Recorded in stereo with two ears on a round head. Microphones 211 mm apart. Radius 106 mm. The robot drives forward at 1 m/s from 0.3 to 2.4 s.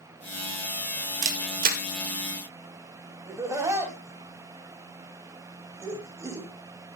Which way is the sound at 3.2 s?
15° right (ahead or behind).